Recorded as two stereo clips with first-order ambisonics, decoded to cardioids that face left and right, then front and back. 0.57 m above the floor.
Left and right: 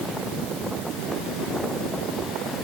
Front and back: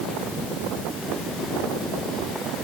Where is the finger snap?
No finger snap in this recording.